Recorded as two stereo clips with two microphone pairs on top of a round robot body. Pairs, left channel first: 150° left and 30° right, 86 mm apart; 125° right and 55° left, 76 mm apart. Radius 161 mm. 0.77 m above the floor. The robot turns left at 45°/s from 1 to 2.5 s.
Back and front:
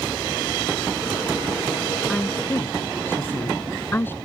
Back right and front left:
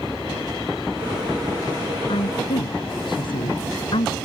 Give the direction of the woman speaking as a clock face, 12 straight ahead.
4 o'clock.